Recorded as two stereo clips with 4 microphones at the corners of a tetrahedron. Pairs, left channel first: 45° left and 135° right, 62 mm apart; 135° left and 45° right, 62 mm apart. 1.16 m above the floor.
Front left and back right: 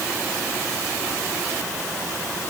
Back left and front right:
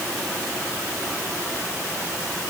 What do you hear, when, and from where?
Only background noise.